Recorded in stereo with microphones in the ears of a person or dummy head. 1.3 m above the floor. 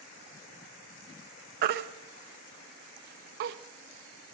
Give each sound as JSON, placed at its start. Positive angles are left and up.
{"t": 1.6, "sound": "a baby crying", "side_deg": -50, "distance_m": 0.6}